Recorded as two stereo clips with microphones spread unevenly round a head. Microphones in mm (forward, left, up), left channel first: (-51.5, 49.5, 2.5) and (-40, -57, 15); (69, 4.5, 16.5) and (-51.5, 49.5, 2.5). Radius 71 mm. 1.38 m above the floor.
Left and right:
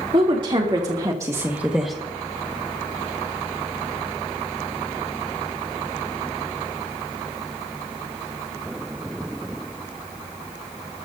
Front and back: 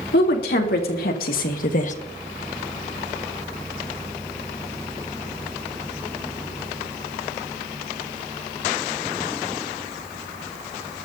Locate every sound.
0.1 s a woman speaking: 25° right, 3.5 m; by 1.9 s 5° left, 1.4 m